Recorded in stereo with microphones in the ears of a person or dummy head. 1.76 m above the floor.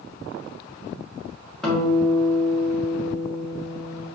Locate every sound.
1.6 s a guitar: 5° left (ahead or behind), 2 m